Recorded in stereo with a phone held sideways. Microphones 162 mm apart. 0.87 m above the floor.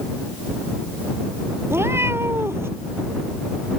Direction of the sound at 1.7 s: 15° right (ahead or behind).